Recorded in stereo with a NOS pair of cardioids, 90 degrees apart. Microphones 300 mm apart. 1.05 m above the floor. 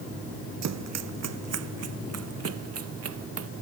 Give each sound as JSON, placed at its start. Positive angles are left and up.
{"t": 0.6, "sound": "running footsteps", "azimuth_deg": -65}